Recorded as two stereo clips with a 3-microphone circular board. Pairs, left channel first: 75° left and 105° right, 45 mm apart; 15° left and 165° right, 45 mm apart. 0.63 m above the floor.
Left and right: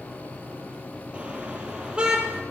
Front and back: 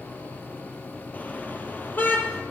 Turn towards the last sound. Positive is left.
turn(degrees=-35)